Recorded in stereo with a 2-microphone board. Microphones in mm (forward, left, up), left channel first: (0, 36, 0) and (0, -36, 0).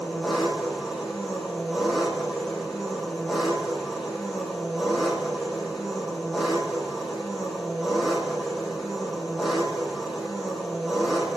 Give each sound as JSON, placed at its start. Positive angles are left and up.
{"t": 0.0, "sound": "an engine running", "side_deg": -10, "distance_m": 4.5}